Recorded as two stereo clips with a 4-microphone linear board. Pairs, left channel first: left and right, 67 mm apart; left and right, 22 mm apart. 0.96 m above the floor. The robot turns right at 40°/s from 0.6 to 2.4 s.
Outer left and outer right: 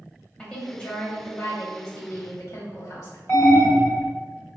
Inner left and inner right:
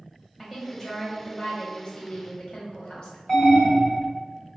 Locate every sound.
0.4 s a woman speaking: 20° left, 1.0 m; by 3.2 s 95° left, 1.0 m
3.3 s an alarm: 40° left (ahead or behind), 1.4 m